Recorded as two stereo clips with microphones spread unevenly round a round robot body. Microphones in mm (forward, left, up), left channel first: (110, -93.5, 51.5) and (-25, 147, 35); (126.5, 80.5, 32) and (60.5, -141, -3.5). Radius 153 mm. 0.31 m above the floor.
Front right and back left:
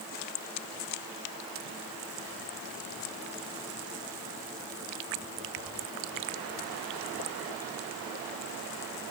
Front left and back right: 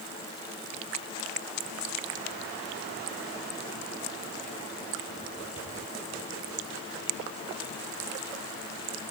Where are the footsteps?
I don't hear footsteps.